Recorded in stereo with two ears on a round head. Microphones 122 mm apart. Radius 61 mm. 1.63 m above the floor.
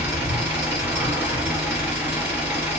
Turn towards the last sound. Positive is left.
turn(degrees=-15)  # may be behind; listen again after turning